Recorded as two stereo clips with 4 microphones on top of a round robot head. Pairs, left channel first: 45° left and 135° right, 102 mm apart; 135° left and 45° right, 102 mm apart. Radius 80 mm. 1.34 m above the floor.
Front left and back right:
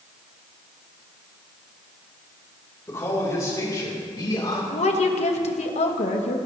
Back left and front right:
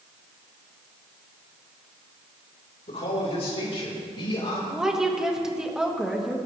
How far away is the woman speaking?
About 1.8 m.